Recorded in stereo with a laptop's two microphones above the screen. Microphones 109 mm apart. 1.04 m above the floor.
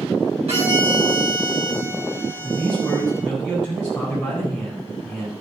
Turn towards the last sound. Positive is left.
turn(degrees=-5)  # may be behind; listen again after turning